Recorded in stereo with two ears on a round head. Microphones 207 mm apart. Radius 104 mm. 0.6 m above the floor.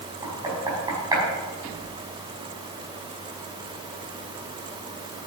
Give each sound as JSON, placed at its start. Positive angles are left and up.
{"t": 0.2, "sound": "knocking", "side_deg": -15, "distance_m": 5.0}